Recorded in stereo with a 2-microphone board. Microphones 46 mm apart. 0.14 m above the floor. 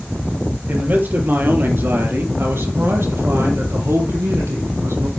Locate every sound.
0.7 s a man speaking: 40° right (ahead or behind), 3.5 m; by 5.1 s 75° right (ahead or behind), 5.5 m